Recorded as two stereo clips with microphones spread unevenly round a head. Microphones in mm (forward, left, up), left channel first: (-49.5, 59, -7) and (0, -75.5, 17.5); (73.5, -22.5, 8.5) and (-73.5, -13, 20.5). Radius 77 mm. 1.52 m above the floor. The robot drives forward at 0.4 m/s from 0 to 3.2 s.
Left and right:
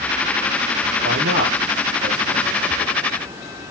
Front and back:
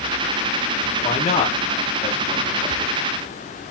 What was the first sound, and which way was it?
A man speaking, 50° right.